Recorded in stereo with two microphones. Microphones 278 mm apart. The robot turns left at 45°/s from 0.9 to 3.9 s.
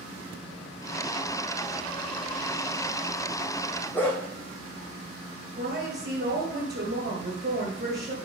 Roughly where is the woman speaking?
Right.